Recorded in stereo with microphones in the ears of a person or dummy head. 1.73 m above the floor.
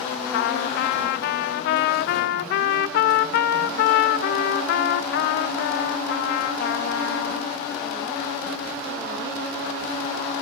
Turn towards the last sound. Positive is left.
turn(degrees=55)  # may be behind; listen again after turning